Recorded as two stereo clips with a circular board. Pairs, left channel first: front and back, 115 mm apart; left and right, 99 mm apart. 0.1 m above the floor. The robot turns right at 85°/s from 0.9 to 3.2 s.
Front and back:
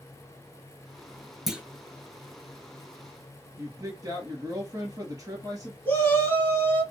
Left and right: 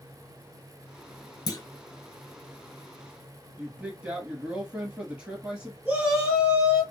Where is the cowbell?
I don't hear a cowbell.